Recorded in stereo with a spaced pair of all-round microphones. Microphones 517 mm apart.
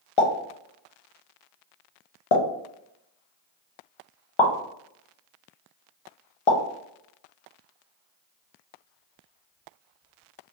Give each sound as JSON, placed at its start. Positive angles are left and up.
{"t": 0.2, "sound": "a pop", "side_deg": 65, "distance_m": 0.7}